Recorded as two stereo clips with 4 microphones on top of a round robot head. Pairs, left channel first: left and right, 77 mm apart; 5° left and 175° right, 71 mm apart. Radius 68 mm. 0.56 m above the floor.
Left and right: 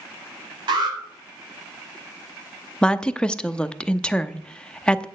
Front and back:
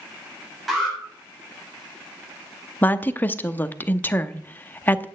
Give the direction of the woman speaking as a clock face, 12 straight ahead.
11 o'clock.